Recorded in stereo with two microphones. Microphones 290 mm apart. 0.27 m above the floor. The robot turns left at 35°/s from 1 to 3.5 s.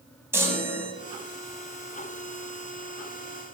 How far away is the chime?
About 0.7 m.